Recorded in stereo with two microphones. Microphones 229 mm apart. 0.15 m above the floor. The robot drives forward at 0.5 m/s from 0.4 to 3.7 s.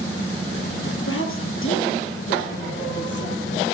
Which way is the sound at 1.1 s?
65° left (ahead or behind).